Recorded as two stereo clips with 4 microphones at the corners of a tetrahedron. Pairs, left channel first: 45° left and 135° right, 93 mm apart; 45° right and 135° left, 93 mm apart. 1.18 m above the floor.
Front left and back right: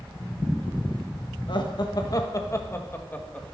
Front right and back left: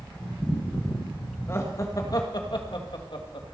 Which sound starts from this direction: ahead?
Laughter, at 1.5 s.